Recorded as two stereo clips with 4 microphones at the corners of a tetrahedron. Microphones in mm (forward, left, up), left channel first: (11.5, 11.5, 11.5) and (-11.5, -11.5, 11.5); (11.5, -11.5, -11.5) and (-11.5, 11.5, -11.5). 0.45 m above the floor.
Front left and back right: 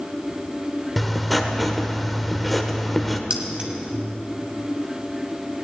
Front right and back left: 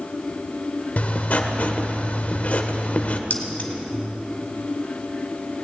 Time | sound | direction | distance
1.0 | writing | 45° right | 1.1 m
3.3 | keys jangling | 80° right | 1.7 m